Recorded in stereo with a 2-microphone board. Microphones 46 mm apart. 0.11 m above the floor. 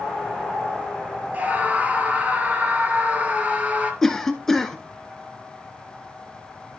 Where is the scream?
35° right (ahead or behind), 2 m.